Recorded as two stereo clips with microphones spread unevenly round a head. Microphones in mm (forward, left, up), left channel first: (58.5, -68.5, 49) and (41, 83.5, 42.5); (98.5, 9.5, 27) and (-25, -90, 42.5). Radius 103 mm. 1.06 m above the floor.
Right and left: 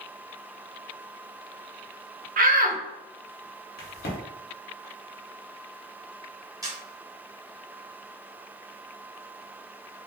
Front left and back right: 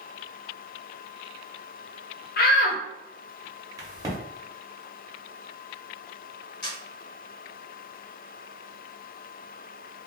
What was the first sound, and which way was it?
A shout, 70° left.